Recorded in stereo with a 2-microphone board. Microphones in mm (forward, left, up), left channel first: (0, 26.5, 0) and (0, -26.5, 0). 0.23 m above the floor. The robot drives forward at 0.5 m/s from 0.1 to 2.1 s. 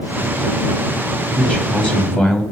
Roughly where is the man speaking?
Centre.